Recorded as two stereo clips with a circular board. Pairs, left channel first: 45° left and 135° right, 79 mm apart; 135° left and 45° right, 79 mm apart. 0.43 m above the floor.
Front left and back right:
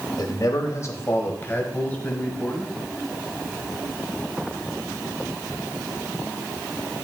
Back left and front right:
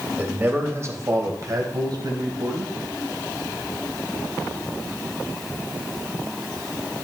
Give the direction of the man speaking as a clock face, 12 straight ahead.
11 o'clock.